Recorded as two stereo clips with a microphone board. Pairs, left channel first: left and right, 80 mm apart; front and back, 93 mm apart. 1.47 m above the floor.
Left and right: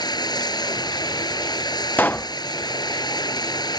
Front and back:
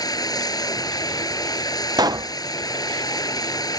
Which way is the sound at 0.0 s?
50° left.